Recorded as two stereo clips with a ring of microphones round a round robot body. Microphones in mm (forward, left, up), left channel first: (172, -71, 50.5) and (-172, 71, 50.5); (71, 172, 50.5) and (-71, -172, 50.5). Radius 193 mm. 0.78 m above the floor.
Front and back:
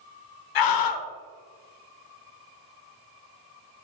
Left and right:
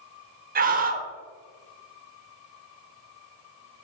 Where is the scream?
45° right, 0.8 m.